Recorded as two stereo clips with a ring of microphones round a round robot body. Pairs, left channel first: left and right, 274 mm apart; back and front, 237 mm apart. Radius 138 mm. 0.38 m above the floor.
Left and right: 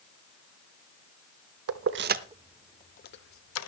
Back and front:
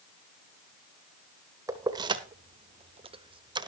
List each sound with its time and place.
1.7 s keys jangling: 75° right, 0.8 m; by 3.7 s 70° left, 1.0 m